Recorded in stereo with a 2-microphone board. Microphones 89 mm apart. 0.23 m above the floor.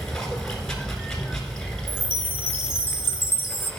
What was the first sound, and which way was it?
Running water, 5° left (ahead or behind).